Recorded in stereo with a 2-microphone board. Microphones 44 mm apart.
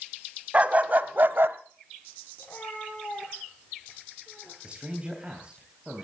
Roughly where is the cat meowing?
Left.